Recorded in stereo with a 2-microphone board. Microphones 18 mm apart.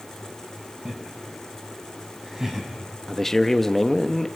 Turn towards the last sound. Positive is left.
turn(degrees=15)  # may be behind; listen again after turning